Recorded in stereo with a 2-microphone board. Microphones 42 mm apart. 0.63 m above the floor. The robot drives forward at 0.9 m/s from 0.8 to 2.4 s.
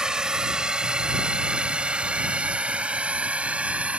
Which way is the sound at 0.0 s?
20° right (ahead or behind).